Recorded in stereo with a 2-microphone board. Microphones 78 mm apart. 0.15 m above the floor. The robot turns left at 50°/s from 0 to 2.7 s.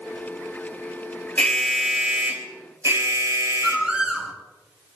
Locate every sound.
1.4 s an alarm: 20° left, 4 m; by 3.9 s 45° right, 4 m
3.6 s a bird: 10° right (ahead or behind), 3 m